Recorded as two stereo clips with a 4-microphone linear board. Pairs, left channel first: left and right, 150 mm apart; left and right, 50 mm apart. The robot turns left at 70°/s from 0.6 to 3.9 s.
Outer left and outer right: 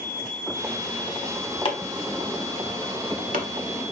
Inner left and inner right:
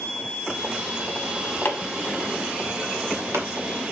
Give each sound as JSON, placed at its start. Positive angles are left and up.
{"t": 1.6, "sound": "chopping", "side_deg": 35, "distance_m": 1.2}